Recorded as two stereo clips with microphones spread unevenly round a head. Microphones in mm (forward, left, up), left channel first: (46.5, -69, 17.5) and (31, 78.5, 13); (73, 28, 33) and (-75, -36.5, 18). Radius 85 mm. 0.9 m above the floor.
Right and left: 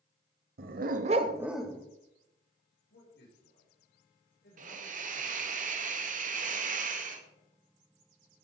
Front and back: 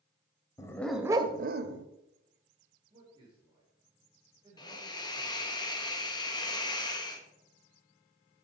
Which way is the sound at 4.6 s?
90° left.